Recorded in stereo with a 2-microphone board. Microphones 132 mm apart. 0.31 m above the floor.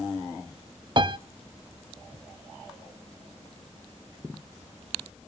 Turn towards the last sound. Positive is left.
turn(degrees=-40)  # may be behind; listen again after turning